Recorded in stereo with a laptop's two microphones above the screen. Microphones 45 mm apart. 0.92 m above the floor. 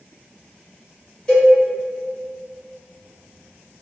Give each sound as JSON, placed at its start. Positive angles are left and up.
{"t": 1.3, "sound": "a cowbell", "side_deg": 15, "distance_m": 1.1}